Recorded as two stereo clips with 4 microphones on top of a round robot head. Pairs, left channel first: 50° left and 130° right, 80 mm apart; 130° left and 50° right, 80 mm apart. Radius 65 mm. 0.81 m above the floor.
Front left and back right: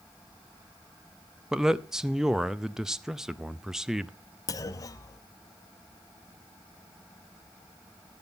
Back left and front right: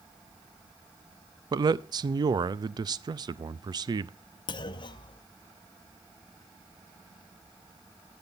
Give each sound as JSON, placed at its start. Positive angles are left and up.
{"t": 1.5, "sound": "a man speaking", "azimuth_deg": -50, "distance_m": 0.6}
{"t": 4.5, "sound": "a clunk", "azimuth_deg": 100, "distance_m": 0.9}